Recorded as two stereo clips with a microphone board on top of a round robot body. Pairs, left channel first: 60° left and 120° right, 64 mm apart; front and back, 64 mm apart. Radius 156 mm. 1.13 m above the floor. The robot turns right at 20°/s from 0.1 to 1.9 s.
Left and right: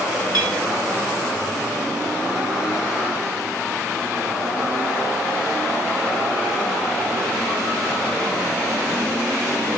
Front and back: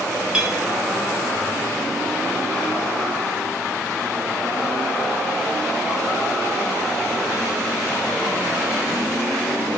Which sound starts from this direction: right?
A clink, at 0.3 s.